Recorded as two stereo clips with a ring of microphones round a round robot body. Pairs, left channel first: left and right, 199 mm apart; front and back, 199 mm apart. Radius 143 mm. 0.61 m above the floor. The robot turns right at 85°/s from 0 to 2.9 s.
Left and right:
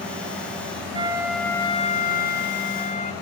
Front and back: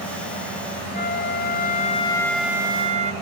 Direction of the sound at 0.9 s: 35° right.